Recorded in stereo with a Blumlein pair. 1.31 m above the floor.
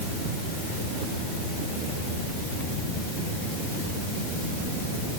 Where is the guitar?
I don't hear a guitar.